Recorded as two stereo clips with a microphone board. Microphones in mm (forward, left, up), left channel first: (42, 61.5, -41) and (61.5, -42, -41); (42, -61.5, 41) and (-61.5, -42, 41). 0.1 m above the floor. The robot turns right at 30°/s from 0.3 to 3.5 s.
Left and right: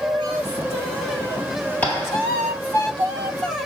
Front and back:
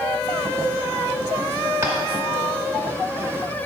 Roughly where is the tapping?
Behind left.